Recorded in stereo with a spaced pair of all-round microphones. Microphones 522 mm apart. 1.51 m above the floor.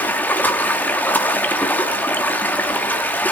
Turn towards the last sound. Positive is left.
turn(degrees=5)  # may be behind; listen again after turning